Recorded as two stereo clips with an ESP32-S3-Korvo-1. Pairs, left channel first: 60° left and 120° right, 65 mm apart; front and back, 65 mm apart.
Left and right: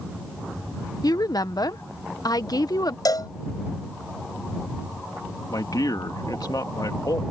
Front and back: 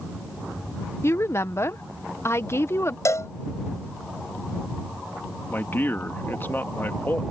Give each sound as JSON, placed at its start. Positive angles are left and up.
{"t": 1.0, "sound": "a woman speaking", "azimuth_deg": 45}
{"t": 3.0, "sound": "a cowbell", "azimuth_deg": 40}
{"t": 5.5, "sound": "a man speaking", "azimuth_deg": 55}